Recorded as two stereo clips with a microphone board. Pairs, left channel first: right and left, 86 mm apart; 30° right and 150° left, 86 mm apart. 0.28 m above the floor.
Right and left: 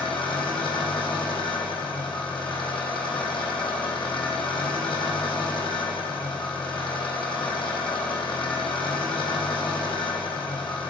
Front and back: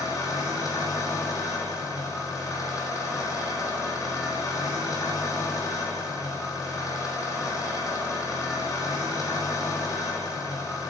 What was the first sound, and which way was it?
An engine running, 80° right.